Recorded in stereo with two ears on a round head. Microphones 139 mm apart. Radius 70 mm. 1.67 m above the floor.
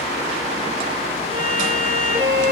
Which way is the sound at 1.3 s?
30° right (ahead or behind).